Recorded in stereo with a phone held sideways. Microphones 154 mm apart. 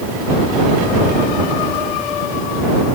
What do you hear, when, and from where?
Only background noise.